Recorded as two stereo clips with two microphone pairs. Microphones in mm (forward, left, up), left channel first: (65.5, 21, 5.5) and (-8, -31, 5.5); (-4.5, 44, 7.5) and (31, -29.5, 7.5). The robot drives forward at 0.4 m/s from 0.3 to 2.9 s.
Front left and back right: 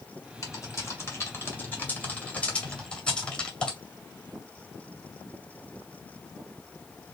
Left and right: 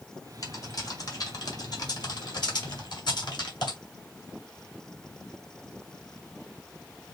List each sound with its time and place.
0.4 s typing on a keyboard: 80° left, 2.0 m; by 3.8 s 115° left, 2 m